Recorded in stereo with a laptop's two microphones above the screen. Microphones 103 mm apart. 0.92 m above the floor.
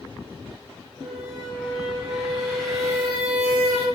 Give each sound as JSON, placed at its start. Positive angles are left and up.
{"t": 1.0, "sound": "a squeak", "side_deg": -5, "distance_m": 0.6}